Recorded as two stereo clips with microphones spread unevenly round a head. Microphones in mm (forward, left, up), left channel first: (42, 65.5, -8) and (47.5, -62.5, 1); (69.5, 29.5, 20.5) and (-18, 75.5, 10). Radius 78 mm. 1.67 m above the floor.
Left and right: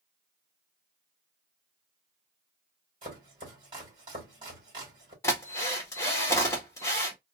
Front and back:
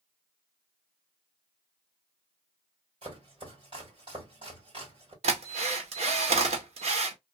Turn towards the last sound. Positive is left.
turn(degrees=165)